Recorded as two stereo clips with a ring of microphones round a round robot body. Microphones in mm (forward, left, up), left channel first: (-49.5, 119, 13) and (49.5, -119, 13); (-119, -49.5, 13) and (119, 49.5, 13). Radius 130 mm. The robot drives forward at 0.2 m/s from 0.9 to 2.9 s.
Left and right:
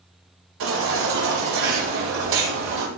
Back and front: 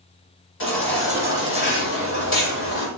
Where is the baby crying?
110° right, 6.5 m; by 2.9 s 115° right, 6.5 m.